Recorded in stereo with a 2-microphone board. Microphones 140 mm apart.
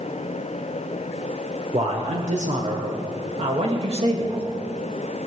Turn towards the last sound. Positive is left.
turn(degrees=-45)  # may be behind; listen again after turning